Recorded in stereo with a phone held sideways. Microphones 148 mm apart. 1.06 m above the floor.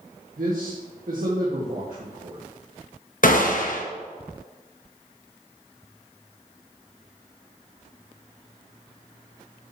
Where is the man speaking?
70° right (ahead or behind), 1.6 m.